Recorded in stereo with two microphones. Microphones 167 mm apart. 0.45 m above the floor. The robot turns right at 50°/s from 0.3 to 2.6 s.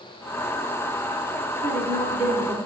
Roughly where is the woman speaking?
Right.